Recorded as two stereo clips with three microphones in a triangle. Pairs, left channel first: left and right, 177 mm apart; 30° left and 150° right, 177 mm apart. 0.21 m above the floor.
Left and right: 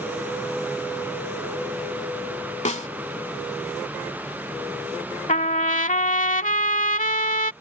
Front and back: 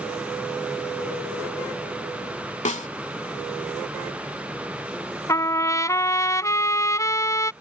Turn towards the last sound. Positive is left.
turn(degrees=95)